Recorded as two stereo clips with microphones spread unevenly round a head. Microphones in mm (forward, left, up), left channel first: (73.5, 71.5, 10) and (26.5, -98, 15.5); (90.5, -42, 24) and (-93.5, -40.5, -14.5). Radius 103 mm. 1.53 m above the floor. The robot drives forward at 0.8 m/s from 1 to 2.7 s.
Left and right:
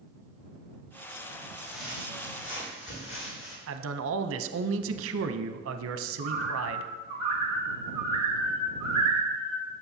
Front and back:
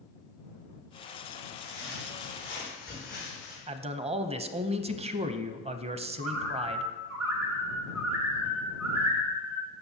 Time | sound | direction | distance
1.6 | footsteps | 55° left | 4 m
3.7 | a man speaking | 120° right | 0.6 m
6.2 | a bird | 175° right | 1.6 m